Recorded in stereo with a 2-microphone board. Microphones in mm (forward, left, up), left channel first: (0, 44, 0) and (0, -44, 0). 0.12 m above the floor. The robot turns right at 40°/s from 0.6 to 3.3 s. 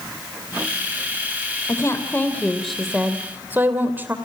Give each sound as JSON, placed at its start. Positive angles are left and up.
{"t": 1.7, "sound": "a woman speaking", "azimuth_deg": 135, "distance_m": 3.0}